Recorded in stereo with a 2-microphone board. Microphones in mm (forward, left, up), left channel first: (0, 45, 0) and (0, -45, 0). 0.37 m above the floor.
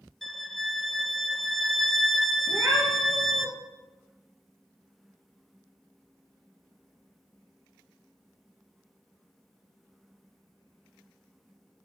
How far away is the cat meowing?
About 2.5 m.